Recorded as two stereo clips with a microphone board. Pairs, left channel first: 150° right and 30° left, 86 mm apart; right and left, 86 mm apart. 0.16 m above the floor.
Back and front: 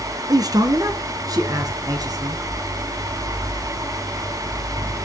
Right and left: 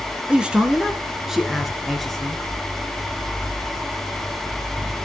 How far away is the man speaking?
About 2.5 m.